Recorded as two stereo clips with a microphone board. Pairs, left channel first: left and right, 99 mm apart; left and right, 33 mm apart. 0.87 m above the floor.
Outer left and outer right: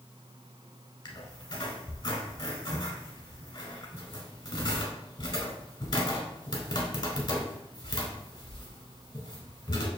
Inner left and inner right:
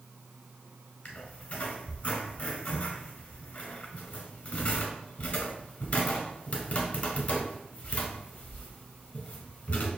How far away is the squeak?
About 1.3 m.